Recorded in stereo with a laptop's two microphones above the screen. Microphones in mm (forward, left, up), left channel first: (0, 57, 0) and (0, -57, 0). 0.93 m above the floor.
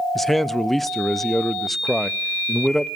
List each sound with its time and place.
0.1 s a man speaking: centre (ahead or behind), 0.5 m